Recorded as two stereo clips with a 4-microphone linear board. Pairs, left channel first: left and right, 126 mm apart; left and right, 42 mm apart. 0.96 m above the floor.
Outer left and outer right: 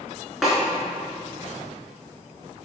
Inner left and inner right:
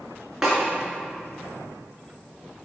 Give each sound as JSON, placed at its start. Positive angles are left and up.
{"t": 0.4, "sound": "a snare drum", "side_deg": -5, "distance_m": 2.5}